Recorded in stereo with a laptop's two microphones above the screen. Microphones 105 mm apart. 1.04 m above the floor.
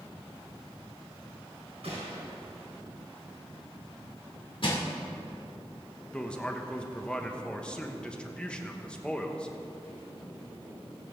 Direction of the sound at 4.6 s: 55° left (ahead or behind).